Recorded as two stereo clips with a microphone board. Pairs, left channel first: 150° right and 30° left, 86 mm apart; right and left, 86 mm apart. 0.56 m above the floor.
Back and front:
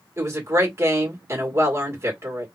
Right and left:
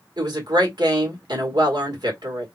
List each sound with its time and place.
0.2 s a woman speaking: 80° left, 2 m